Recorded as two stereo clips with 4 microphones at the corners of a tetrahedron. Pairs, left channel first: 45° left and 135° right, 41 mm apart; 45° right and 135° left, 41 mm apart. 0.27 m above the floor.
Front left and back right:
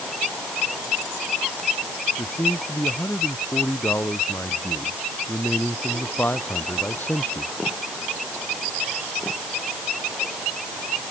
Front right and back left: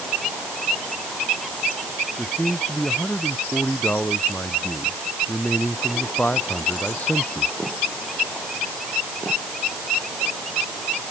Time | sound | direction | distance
2.2 | a man speaking | 10° left | ?